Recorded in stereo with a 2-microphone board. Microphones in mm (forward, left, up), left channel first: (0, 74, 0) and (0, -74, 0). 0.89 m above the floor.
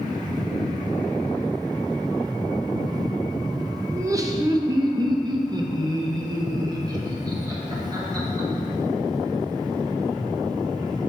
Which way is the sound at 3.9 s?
20° right (ahead or behind).